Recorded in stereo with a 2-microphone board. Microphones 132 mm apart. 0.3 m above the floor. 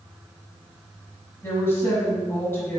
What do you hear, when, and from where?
1.4 s a woman speaking: 20° left (ahead or behind), 1.5 m